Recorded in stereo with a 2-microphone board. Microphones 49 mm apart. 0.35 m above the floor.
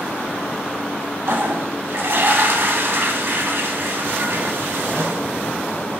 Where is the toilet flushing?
60° right (ahead or behind), 0.5 m.